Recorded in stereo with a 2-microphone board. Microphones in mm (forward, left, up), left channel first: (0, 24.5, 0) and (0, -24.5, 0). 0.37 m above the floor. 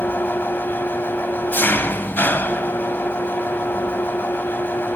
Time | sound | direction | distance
0.0 | an engine running | 45° left (ahead or behind) | 1.2 m